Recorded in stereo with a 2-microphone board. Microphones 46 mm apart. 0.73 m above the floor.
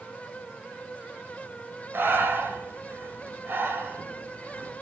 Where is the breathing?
50° right (ahead or behind), 2 m.